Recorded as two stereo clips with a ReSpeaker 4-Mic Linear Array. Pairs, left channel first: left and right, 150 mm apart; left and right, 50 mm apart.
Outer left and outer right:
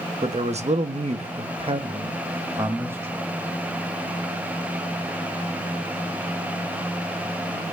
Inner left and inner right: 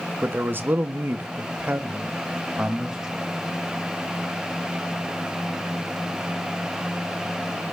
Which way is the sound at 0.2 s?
45° right (ahead or behind).